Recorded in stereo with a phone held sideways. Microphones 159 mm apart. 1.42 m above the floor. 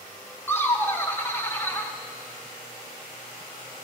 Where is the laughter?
15° left (ahead or behind), 1.0 m.